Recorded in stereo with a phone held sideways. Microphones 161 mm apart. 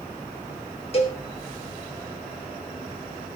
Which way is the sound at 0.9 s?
40° left (ahead or behind).